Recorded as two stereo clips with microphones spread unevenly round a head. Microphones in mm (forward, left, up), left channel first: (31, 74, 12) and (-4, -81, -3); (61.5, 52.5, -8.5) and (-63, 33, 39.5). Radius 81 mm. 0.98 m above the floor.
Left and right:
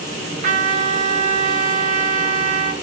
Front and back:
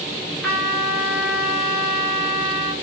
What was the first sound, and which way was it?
A trumpet, 70° right.